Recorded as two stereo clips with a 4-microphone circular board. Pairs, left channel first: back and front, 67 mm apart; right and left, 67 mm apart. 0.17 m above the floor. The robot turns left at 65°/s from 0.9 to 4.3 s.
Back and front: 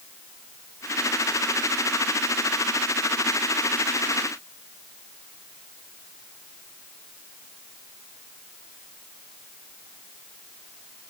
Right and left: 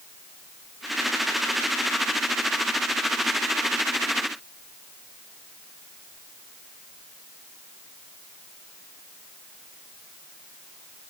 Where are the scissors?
I don't hear scissors.